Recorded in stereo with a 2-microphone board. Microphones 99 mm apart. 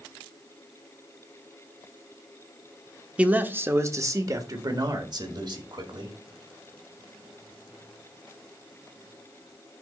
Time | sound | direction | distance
3.2 | a man speaking | 10° right (ahead or behind) | 0.9 m